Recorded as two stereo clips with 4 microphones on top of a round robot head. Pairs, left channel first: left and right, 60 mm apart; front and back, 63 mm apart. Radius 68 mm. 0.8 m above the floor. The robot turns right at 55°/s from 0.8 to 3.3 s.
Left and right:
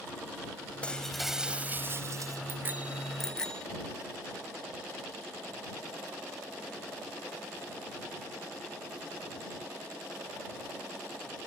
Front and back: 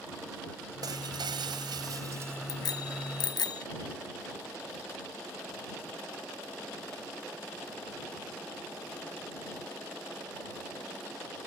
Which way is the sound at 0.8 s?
160° left.